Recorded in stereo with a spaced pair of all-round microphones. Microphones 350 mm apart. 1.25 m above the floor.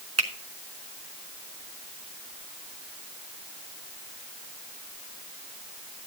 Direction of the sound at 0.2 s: 45° right (ahead or behind).